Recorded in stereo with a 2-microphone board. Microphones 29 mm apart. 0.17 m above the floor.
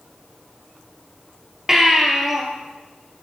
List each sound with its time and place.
1.7 s a baby crying: 15° right (ahead or behind), 3 m